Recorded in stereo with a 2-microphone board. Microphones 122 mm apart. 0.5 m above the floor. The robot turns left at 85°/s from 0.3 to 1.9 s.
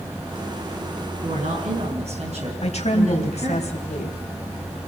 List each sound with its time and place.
1.2 s a woman speaking: 60° right, 5.5 m; by 3.6 s 120° right, 5.5 m
2.6 s a woman speaking: 65° left (ahead or behind), 3.5 m